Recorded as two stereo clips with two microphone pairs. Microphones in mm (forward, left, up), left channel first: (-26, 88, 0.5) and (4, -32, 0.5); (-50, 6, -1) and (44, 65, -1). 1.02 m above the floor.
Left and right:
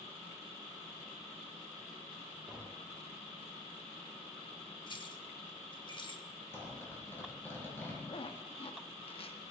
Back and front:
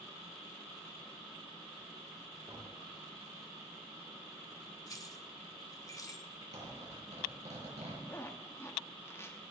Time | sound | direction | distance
2.5 | tapping | 5° right | 5 m
4.9 | keys jangling | 155° left | 1.0 m
6.5 | a zipper | 30° left | 6.5 m
8.1 | a zipper | 145° left | 1.0 m